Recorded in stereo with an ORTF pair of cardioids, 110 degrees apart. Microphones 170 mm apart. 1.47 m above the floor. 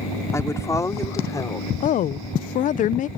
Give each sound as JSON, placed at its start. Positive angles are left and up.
{"t": 0.3, "sound": "a woman speaking", "azimuth_deg": 15}
{"t": 1.8, "sound": "a woman speaking", "azimuth_deg": 50}